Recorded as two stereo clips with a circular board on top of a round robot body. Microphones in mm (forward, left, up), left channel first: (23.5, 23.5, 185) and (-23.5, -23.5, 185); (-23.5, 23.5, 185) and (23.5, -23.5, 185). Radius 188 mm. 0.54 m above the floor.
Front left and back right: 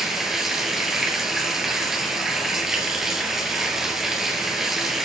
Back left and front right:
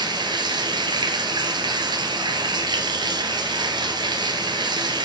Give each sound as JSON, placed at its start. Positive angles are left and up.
{"t": 0.0, "sound": "running water", "azimuth_deg": -50, "distance_m": 2.0}